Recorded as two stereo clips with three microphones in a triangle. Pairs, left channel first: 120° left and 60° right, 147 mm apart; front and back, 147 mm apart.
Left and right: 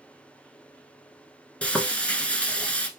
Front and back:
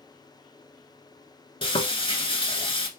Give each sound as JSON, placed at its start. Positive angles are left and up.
{"t": 1.6, "sound": "frying", "azimuth_deg": 40, "distance_m": 0.9}